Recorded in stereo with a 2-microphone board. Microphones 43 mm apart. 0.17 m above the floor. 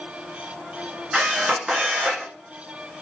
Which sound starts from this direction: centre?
A camera shutter, at 1.1 s.